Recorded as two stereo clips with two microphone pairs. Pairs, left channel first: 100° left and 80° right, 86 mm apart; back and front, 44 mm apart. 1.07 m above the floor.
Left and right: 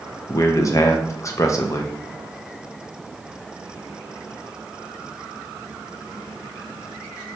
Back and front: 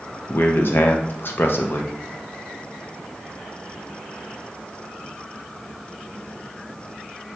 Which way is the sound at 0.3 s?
150° left.